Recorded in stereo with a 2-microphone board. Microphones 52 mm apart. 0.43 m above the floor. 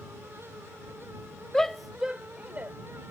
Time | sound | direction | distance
1.5 | a shout | 10° left (ahead or behind) | ?